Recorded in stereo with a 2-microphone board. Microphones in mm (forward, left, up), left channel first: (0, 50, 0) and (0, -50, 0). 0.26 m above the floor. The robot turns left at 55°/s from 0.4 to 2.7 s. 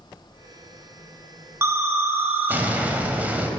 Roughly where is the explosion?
Right.